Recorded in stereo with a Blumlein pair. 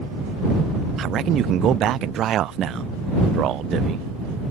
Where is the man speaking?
30° right.